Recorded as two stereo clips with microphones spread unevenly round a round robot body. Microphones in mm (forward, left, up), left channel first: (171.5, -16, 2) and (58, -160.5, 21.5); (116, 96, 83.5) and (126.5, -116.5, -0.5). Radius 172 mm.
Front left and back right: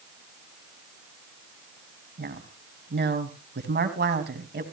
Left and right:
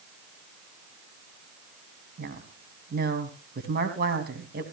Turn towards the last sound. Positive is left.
turn(degrees=-110)